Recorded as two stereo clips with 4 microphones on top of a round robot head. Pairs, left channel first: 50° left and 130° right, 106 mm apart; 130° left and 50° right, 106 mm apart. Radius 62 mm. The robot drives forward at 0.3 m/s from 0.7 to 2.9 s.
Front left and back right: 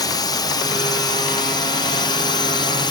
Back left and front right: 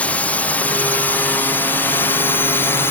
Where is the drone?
65° left; by 2.9 s 70° left.